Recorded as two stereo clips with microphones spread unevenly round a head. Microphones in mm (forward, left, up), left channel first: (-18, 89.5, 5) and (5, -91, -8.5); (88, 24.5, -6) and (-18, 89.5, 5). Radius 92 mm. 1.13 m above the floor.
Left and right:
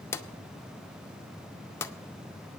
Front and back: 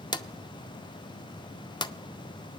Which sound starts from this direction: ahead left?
A drawer, at 0.1 s.